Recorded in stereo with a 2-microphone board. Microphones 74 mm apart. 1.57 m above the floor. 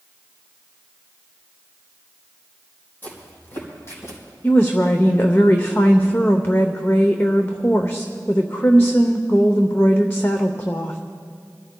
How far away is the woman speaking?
About 0.7 m.